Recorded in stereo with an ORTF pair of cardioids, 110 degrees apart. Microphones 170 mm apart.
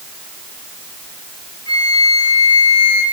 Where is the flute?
25° left, 4 m.